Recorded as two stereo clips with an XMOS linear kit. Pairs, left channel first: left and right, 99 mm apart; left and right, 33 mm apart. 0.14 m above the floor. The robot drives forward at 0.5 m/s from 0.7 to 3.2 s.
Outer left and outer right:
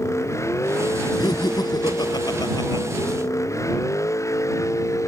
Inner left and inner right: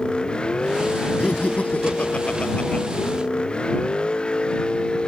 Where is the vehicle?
30° left (ahead or behind).